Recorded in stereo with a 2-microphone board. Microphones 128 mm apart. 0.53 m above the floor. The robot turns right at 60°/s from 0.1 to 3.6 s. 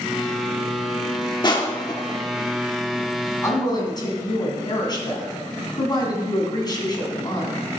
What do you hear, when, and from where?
1.4 s crushing: 35° left (ahead or behind), 1.3 m; by 2.2 s 25° left (ahead or behind), 1.3 m
3.4 s a woman speaking: 25° left (ahead or behind), 3.5 m; by 7.7 s 35° left (ahead or behind), 3.5 m